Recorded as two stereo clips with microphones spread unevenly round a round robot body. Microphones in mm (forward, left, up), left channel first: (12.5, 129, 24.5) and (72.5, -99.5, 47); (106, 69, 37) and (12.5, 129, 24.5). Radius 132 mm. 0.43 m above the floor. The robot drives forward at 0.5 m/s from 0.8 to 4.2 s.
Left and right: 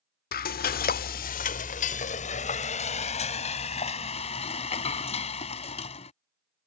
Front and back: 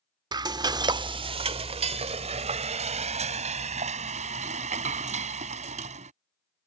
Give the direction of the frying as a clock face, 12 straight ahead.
8 o'clock.